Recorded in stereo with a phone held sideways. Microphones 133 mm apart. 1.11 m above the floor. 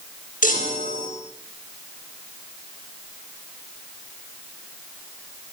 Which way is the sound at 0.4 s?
80° left.